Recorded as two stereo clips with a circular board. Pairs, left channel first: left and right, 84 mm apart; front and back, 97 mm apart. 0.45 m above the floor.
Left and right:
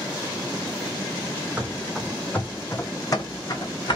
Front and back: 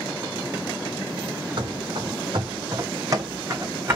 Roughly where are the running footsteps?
Behind.